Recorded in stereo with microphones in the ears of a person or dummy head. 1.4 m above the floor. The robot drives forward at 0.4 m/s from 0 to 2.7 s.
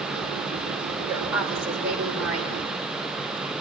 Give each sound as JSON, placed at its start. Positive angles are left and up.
{"t": 1.0, "sound": "a woman speaking", "side_deg": -10, "distance_m": 5.5}